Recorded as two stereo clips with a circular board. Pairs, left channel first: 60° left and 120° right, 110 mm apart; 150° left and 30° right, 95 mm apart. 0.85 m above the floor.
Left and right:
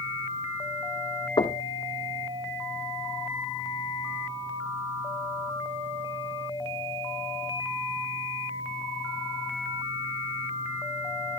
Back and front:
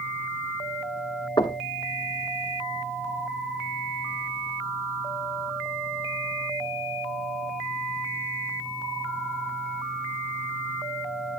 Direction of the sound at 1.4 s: 105° left.